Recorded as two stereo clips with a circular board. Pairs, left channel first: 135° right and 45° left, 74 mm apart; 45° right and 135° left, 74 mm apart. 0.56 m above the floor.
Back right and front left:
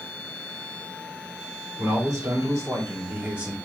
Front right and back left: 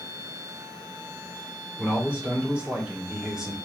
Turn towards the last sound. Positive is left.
turn(degrees=70)